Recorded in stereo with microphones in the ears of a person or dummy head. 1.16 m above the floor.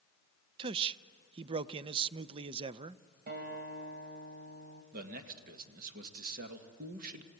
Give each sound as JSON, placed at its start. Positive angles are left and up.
{"t": 0.6, "sound": "a man speaking", "side_deg": -25, "distance_m": 0.5}
{"t": 3.3, "sound": "a guitar", "side_deg": -45, "distance_m": 2.5}
{"t": 4.9, "sound": "a man speaking", "side_deg": -50, "distance_m": 1.8}